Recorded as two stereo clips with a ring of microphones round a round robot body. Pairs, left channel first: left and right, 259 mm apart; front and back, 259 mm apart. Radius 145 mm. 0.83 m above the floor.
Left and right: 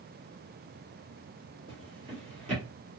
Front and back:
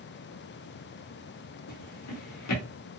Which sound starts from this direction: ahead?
A drawer, at 1.7 s.